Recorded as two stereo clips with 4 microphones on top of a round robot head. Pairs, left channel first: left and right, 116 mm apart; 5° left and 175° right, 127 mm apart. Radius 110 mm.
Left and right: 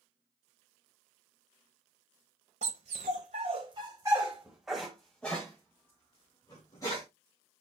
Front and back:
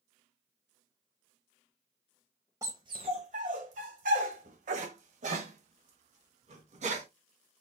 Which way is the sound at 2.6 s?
105° right.